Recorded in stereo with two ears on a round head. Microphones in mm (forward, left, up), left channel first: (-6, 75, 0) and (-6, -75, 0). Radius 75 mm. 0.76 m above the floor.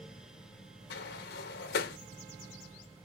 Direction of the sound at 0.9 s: 65° left (ahead or behind).